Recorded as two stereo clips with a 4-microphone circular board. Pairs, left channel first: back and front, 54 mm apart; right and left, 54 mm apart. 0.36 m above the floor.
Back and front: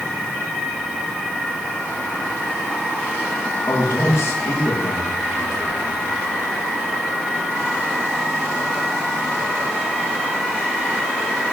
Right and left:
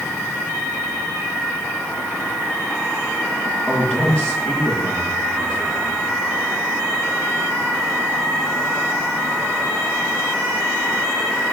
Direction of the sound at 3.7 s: 155° right.